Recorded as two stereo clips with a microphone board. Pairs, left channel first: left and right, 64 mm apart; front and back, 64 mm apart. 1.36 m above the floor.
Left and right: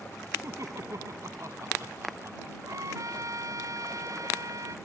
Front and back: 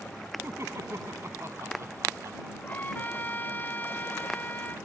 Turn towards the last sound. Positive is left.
turn(degrees=-60)